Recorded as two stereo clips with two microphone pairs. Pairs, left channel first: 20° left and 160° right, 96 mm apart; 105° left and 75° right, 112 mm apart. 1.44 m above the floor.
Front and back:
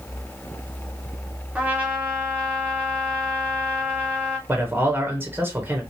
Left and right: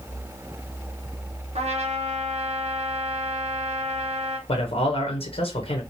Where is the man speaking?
130° left, 0.9 m.